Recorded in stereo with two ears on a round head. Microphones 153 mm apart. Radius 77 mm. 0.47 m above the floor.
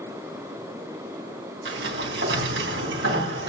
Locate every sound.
1.6 s a sliding door: 75° right (ahead or behind), 3.5 m